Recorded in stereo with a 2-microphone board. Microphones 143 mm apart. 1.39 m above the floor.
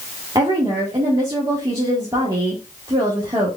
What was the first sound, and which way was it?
A woman speaking, 30° right (ahead or behind).